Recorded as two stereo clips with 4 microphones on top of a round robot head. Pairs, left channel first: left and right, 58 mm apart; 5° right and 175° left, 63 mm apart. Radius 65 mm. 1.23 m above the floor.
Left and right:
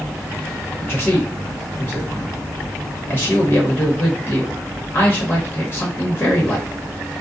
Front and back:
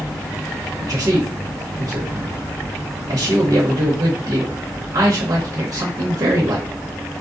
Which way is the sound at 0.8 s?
150° left.